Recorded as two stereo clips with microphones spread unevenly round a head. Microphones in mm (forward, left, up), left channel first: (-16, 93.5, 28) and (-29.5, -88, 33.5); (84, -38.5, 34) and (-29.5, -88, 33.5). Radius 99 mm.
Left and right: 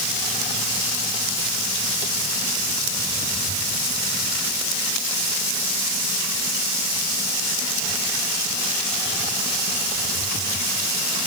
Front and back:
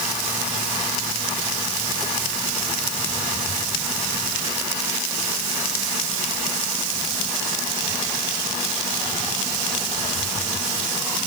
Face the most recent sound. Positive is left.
No sound to turn to.